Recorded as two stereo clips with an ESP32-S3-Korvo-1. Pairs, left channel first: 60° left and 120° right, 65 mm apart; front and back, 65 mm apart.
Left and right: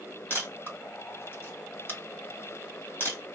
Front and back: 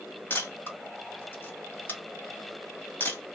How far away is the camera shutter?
About 1.7 m.